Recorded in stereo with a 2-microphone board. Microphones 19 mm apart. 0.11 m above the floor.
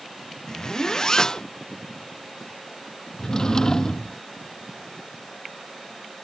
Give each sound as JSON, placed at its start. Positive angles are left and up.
{"t": 0.5, "sound": "a zipper", "side_deg": 35}
{"t": 3.2, "sound": "a drawer", "side_deg": 30}